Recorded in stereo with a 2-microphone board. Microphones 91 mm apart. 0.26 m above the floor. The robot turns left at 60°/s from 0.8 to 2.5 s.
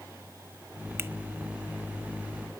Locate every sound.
1.0 s a finger snap: 25° right (ahead or behind), 0.8 m